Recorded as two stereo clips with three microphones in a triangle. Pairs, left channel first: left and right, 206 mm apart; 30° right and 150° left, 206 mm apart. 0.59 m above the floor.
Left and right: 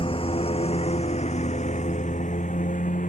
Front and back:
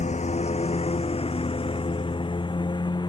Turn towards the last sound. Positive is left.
turn(degrees=40)